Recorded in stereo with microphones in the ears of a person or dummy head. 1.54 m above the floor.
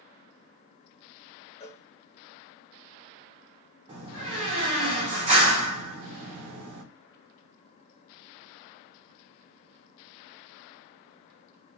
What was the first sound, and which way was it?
A cowbell, 30° left (ahead or behind).